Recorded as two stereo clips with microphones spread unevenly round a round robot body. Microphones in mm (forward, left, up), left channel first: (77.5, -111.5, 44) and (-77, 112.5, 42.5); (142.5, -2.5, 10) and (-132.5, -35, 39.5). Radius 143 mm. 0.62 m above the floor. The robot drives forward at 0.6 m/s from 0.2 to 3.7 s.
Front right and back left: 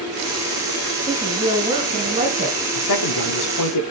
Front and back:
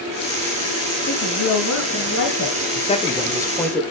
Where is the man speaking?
60° right, 1.8 m; by 3.8 s 75° right, 1.6 m.